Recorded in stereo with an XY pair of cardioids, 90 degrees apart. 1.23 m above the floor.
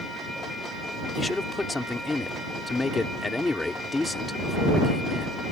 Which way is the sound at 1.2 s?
20° left.